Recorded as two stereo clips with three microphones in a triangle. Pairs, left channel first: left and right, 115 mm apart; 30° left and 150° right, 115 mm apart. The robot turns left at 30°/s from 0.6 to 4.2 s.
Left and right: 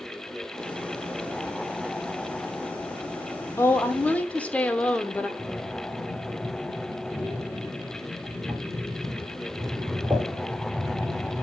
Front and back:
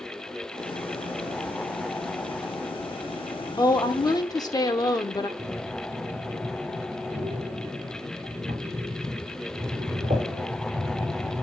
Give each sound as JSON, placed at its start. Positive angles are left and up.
{"t": 3.6, "sound": "a woman speaking", "azimuth_deg": 40, "distance_m": 0.9}
{"t": 5.4, "sound": "breathing", "azimuth_deg": 175, "distance_m": 3.0}